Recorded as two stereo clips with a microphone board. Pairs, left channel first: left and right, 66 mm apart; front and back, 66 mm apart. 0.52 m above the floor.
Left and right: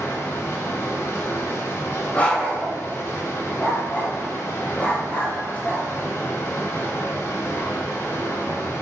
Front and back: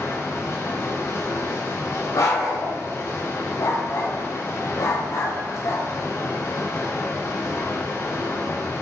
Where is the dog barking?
20° left, 1.1 m.